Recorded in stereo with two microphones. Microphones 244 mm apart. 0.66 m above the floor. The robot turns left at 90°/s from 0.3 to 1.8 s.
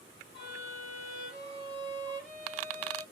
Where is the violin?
45° right, 1.8 m; by 3.0 s 175° right, 1.8 m.